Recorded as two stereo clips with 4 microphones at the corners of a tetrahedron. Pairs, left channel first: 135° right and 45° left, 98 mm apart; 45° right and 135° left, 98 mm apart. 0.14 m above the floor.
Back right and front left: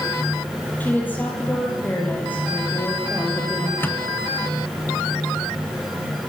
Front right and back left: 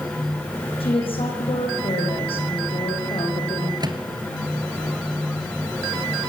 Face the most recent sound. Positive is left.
turn(degrees=160)